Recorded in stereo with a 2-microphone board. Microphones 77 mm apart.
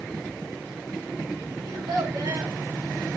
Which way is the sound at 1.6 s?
60° right (ahead or behind).